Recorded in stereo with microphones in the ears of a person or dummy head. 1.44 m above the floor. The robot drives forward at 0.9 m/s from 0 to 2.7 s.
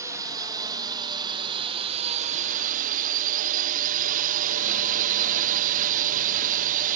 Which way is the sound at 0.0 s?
15° right (ahead or behind).